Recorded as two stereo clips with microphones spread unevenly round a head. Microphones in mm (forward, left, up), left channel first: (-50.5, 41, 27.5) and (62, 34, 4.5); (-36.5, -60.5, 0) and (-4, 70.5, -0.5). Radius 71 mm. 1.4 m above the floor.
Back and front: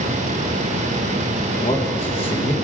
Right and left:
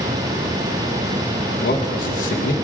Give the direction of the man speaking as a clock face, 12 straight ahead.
4 o'clock.